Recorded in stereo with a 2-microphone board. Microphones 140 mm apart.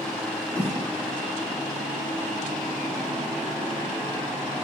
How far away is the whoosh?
About 6 m.